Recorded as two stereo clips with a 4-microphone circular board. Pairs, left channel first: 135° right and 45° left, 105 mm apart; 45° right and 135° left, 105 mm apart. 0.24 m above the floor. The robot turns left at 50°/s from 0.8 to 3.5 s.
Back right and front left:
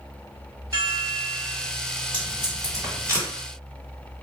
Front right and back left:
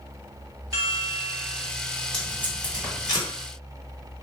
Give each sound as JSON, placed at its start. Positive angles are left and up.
{"t": 0.7, "sound": "a chime", "azimuth_deg": 95, "distance_m": 1.4}
{"t": 2.1, "sound": "tape being pulled", "azimuth_deg": 35, "distance_m": 1.6}